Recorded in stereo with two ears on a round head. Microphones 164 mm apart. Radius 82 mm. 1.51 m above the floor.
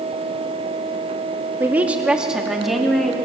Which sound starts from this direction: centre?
A woman speaking, at 1.6 s.